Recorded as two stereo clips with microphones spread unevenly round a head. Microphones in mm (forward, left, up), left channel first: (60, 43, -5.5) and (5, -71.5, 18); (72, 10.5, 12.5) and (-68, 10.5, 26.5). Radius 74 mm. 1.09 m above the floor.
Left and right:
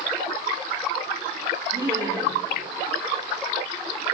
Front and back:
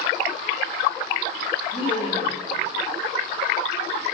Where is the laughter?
55° right, 4 m.